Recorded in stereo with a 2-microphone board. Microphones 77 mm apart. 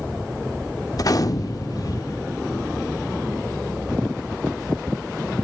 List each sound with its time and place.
0.9 s a gunshot: 50° left (ahead or behind), 0.7 m